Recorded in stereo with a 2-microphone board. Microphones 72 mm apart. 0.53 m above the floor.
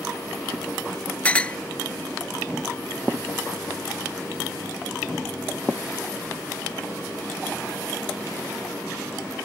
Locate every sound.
1.2 s a clink: 15° left (ahead or behind)